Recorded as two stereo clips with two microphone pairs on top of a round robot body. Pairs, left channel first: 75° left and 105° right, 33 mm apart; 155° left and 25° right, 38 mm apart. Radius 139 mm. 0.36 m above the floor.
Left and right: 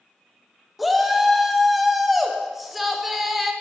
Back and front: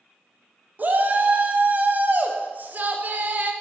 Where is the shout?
20° right, 0.8 m.